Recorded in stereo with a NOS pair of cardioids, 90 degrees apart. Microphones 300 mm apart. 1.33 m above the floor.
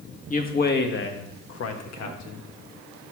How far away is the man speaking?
About 1.6 m.